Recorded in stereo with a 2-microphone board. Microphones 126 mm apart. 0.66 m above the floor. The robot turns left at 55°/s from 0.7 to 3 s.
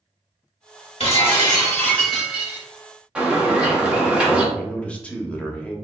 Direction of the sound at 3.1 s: 10° right (ahead or behind).